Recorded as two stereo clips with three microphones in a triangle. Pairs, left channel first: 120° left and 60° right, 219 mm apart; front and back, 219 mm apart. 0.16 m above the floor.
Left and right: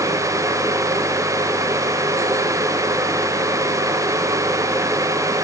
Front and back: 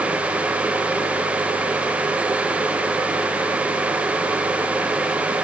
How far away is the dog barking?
I don't hear a dog barking.